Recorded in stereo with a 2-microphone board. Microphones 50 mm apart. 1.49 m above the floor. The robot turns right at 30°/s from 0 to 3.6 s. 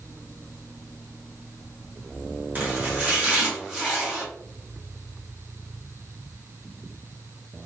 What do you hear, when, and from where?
2.5 s chopping: 55° right, 1.0 m; by 4.2 s 25° right, 1.0 m